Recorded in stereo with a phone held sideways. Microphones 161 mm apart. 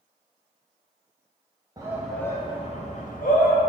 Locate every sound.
1.8 s a shout: 25° right (ahead or behind), 0.5 m; by 3.6 s 65° left (ahead or behind), 1.1 m